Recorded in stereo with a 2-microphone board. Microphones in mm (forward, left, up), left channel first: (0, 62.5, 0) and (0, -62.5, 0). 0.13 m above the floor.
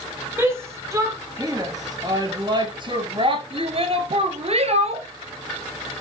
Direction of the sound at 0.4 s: 20° right (ahead or behind).